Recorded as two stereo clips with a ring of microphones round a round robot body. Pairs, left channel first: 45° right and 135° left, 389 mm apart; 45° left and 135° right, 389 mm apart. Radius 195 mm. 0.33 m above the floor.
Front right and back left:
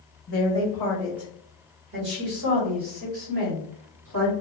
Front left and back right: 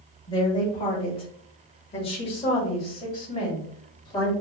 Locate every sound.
0.3 s a woman speaking: 20° right, 1.1 m; by 4.3 s 125° left, 2 m